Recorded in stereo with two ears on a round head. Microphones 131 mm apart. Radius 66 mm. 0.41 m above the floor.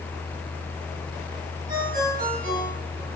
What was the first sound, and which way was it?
A ringtone, 60° right (ahead or behind).